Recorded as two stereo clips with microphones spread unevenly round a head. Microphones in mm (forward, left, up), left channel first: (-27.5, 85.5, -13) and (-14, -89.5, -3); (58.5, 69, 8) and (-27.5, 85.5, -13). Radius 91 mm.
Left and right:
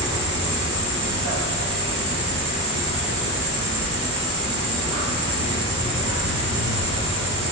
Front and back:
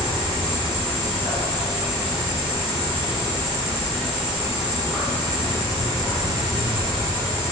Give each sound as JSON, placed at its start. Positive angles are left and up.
{"t": 0.0, "sound": "an insect", "azimuth_deg": -85, "distance_m": 1.1}